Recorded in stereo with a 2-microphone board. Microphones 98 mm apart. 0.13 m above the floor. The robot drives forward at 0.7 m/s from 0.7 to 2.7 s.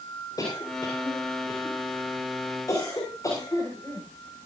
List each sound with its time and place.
0.4 s a cough: 40° left (ahead or behind), 8 m; by 4.1 s 35° left (ahead or behind), 9 m